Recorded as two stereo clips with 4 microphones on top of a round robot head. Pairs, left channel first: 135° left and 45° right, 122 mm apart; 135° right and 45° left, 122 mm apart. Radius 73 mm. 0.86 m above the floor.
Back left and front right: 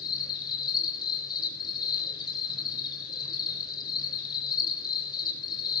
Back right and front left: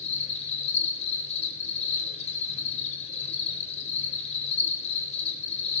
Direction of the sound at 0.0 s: 170° right.